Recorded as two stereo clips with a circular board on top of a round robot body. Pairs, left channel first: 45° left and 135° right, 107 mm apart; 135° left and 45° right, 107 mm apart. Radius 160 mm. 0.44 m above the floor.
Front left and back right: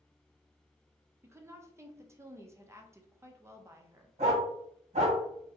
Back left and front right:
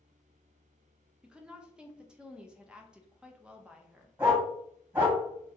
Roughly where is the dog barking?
Behind right.